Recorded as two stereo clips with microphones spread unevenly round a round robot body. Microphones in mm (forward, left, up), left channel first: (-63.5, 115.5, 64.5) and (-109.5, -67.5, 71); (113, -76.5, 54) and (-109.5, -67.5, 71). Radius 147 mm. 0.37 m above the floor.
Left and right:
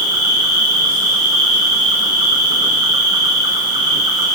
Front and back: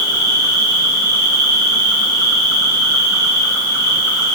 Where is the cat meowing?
No cat meowing in this recording.